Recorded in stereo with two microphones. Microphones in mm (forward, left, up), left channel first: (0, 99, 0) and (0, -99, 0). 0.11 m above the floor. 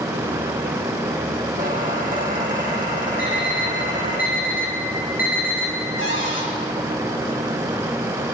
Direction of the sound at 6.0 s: 80° left.